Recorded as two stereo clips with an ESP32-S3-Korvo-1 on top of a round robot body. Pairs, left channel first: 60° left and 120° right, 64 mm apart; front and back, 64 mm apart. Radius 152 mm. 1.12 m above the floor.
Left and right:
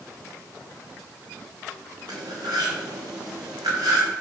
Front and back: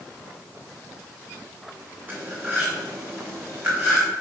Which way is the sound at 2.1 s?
120° right.